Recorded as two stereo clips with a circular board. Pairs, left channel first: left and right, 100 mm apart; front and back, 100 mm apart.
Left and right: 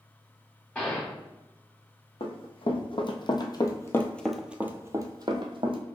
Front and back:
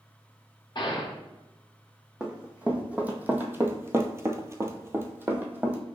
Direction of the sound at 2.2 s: 100° left.